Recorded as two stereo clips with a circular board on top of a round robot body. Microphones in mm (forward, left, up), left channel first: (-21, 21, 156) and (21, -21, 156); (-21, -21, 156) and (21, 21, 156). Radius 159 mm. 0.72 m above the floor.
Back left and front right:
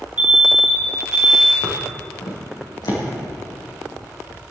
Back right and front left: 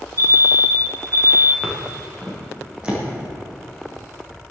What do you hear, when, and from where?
0.2 s an alarm: 20° left, 4.5 m
1.6 s footsteps: 130° left, 3.5 m; by 3.0 s 120° left, 5 m